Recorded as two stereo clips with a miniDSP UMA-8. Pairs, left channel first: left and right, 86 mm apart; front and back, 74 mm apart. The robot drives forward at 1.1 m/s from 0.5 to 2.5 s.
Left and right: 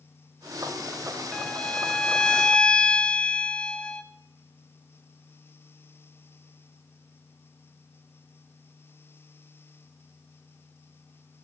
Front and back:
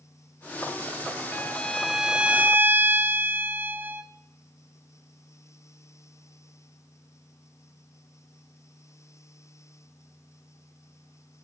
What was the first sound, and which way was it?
A violin, 25° left.